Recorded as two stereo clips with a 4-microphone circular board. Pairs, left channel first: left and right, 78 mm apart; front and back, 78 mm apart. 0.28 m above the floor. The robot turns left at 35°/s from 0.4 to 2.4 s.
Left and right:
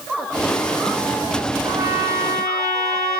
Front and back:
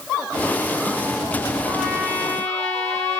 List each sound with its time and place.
1.6 s a trumpet: 55° right, 1.8 m; by 3.2 s 85° right, 1.8 m